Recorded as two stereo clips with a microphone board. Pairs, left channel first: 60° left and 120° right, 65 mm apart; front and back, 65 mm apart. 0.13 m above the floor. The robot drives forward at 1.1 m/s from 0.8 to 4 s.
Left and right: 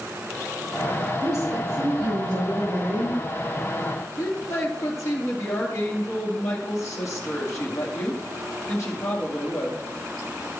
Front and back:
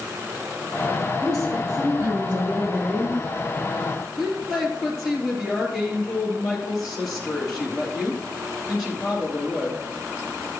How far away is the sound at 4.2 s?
About 3 m.